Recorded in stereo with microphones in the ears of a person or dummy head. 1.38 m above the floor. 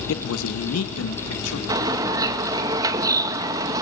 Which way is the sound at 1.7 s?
25° right (ahead or behind).